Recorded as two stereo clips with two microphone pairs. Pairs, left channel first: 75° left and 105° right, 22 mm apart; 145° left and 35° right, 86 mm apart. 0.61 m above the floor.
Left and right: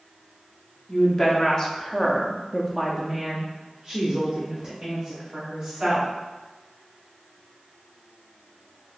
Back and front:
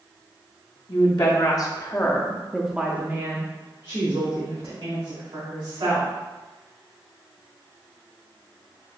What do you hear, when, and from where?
0.9 s a woman speaking: 135° left, 1.1 m; by 6.1 s 35° right, 1.9 m